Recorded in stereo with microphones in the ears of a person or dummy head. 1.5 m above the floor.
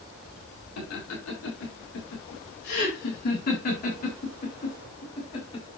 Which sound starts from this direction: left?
Laughter, at 0.8 s.